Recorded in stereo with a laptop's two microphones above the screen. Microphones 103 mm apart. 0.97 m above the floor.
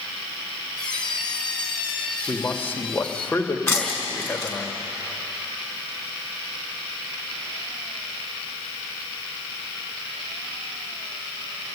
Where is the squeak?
10° left (ahead or behind), 3 m.